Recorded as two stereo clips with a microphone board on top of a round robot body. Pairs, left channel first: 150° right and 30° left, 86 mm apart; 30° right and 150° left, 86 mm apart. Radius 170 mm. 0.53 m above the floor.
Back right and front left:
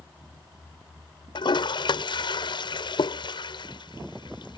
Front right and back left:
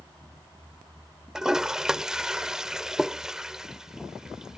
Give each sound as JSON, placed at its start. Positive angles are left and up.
{"t": 1.4, "sound": "a toilet flushing", "azimuth_deg": -125}